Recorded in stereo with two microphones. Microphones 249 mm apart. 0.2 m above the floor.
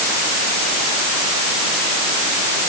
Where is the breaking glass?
I don't hear breaking glass.